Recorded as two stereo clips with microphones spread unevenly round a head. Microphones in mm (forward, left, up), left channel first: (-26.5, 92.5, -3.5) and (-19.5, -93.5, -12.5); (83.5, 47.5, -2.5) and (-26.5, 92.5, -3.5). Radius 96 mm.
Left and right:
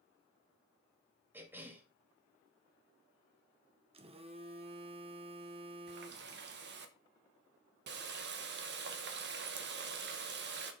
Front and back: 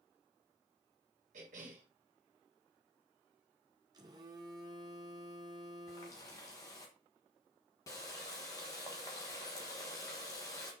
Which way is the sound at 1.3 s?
165° right.